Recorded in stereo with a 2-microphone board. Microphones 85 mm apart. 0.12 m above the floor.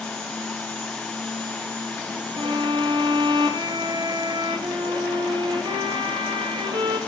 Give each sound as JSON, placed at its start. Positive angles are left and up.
{"t": 2.4, "sound": "a violin", "side_deg": -80, "distance_m": 3.5}